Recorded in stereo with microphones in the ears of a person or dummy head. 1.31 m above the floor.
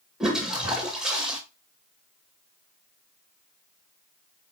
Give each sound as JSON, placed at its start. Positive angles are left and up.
{"t": 0.2, "sound": "a toilet flushing", "side_deg": 0, "distance_m": 1.8}